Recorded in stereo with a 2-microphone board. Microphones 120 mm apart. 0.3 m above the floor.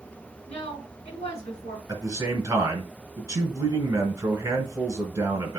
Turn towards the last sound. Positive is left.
turn(degrees=-30)  # may be behind; listen again after turning